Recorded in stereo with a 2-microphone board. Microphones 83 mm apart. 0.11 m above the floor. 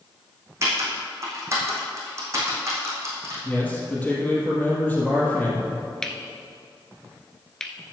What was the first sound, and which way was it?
Typing on a keyboard, 35° right (ahead or behind).